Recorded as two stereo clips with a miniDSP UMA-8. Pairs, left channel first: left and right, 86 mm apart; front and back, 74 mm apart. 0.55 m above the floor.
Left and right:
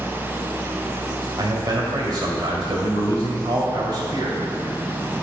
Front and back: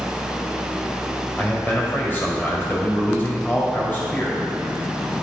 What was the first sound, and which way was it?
A man speaking, 60° right.